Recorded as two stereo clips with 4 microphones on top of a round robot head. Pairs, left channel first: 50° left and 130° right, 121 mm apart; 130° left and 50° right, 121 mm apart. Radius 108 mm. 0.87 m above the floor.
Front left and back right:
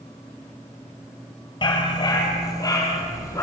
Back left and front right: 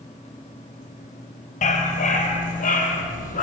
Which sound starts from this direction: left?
A dog barking, at 1.6 s.